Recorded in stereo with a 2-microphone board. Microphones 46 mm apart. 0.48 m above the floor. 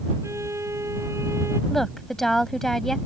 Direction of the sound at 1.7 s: 5° left (ahead or behind).